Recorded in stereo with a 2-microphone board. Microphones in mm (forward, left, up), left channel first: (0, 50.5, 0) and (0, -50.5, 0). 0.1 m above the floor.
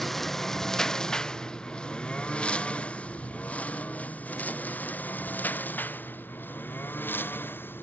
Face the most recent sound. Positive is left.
turn(degrees=20)  # may be behind; listen again after turning